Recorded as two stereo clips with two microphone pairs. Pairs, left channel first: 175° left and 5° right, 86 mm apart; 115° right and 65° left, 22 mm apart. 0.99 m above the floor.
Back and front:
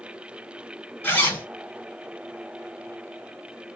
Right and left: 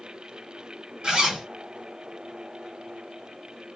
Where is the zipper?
110° left, 2.5 m.